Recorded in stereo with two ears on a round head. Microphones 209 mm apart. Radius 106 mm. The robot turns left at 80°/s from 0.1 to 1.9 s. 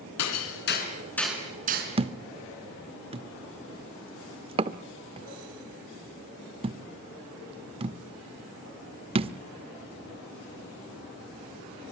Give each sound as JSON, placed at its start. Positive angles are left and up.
{"t": 0.2, "sound": "hammering", "side_deg": 85, "distance_m": 4.0}
{"t": 2.0, "sound": "a thud", "side_deg": -25, "distance_m": 0.7}